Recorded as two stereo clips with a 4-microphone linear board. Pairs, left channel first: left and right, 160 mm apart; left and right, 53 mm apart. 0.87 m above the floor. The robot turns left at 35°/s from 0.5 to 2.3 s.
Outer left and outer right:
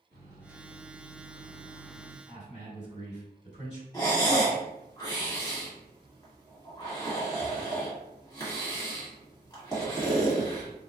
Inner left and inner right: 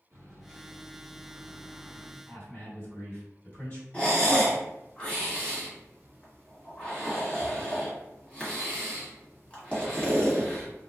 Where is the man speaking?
45° left (ahead or behind), 1.7 m.